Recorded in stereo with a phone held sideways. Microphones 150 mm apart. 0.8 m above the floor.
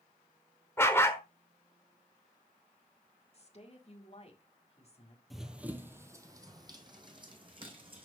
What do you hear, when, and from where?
0.8 s a dog barking: 15° left (ahead or behind), 1.0 m
3.3 s a woman speaking: 45° left (ahead or behind), 1.9 m
5.3 s running footsteps: centre (ahead or behind), 1.0 m; by 8.1 s 35° right (ahead or behind), 2.5 m